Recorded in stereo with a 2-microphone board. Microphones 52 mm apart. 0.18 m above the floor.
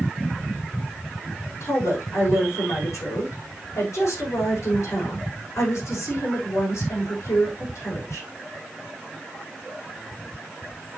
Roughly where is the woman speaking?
Left.